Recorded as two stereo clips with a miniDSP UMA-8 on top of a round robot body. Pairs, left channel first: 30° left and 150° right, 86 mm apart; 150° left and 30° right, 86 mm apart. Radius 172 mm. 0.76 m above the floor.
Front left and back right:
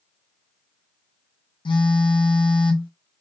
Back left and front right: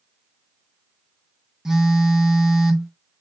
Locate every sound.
1.6 s a phone buzzing: 55° left, 0.5 m